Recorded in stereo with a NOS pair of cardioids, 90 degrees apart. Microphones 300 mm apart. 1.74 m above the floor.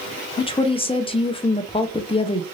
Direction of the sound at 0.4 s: 20° left.